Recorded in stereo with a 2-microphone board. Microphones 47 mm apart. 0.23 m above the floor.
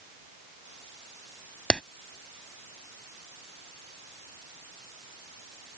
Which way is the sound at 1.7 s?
20° left (ahead or behind).